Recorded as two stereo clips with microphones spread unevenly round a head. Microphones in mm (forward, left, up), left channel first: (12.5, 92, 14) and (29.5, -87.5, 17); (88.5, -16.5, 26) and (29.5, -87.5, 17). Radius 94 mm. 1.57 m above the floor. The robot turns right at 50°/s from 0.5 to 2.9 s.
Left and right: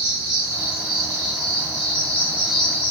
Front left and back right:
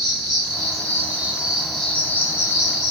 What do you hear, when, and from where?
0.0 s an insect: 95° right, 2.5 m; by 2.9 s 25° left, 2.5 m